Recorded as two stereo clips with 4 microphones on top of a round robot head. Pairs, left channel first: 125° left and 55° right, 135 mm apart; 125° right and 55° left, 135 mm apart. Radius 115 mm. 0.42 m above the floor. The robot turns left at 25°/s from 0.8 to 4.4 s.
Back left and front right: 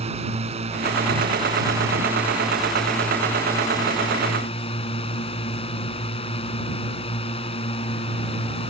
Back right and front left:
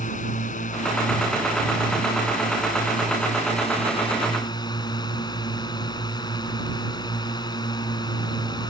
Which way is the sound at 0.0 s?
95° right.